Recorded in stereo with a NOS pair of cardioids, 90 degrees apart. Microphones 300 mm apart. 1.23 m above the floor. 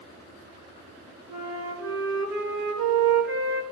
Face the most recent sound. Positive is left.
turn(degrees=-70)